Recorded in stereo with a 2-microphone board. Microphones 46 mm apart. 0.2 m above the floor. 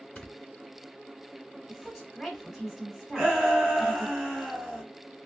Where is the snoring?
15° left (ahead or behind), 1.0 m.